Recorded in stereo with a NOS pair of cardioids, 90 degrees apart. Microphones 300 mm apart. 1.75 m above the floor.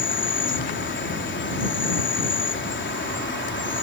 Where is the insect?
40° left.